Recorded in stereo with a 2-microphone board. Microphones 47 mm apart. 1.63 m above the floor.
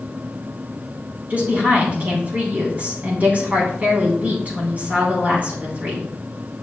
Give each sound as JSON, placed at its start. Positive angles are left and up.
{"t": 1.3, "sound": "a woman speaking", "side_deg": -35, "distance_m": 3.5}